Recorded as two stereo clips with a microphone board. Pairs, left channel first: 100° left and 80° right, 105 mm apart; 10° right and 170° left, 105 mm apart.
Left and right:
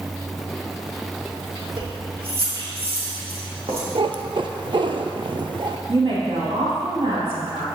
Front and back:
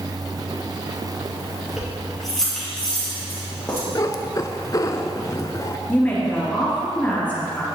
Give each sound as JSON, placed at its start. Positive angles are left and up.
{"t": 1.8, "sound": "keys jangling", "azimuth_deg": -105, "distance_m": 2.5}
{"t": 4.0, "sound": "a cat meowing", "azimuth_deg": -65, "distance_m": 0.5}
{"t": 5.9, "sound": "a woman speaking", "azimuth_deg": -85, "distance_m": 3.0}